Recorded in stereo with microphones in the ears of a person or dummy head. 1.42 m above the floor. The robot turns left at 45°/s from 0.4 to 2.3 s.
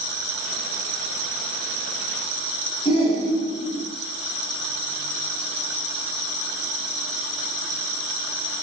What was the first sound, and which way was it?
A shout, 25° left (ahead or behind).